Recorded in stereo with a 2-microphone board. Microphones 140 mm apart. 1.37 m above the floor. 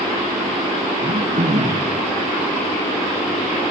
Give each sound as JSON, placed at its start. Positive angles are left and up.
{"t": 1.0, "sound": "throat clearing", "side_deg": -60, "distance_m": 4.0}